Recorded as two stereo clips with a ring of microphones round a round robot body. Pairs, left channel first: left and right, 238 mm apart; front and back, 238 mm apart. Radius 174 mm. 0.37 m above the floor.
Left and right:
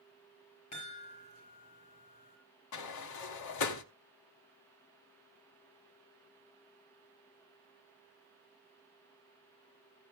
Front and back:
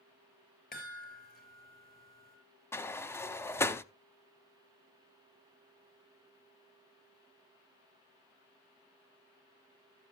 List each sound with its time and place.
0.7 s a chime: 55° left, 5.5 m
2.7 s a sliding door: 80° left, 0.7 m